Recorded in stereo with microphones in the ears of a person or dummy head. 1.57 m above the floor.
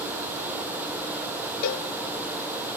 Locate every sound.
1.6 s a cowbell: 55° left (ahead or behind), 1.1 m